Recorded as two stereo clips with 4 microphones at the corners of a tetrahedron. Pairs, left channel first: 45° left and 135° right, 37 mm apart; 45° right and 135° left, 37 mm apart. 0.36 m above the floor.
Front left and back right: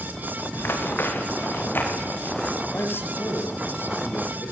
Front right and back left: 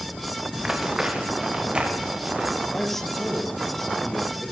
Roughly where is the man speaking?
Ahead left.